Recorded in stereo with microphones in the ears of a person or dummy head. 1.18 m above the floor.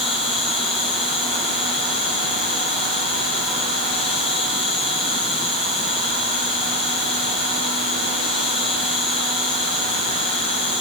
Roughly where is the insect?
Left.